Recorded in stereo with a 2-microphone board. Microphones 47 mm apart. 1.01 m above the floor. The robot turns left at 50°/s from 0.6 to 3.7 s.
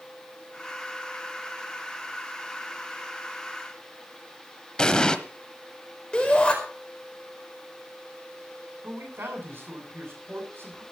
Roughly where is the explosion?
Centre.